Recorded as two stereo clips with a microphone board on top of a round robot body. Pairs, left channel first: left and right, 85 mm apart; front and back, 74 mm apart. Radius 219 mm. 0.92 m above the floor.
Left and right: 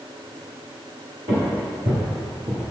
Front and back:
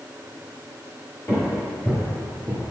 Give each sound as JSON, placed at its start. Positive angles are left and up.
{"t": 1.3, "sound": "footsteps", "azimuth_deg": -60, "distance_m": 1.4}